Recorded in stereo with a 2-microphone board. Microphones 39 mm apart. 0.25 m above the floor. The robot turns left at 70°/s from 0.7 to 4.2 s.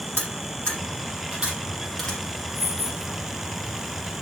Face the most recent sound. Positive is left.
turn(degrees=-15)